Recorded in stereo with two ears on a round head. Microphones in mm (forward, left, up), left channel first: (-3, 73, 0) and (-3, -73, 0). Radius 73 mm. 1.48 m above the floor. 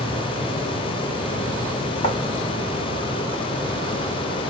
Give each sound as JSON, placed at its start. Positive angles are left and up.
{"t": 2.0, "sound": "writing", "side_deg": 40, "distance_m": 1.9}